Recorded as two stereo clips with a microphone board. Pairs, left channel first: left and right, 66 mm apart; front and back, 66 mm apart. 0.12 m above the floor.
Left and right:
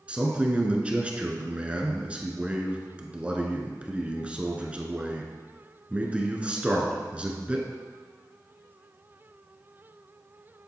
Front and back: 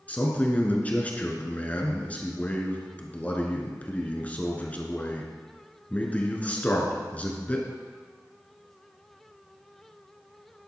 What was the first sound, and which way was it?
A man speaking, 40° right.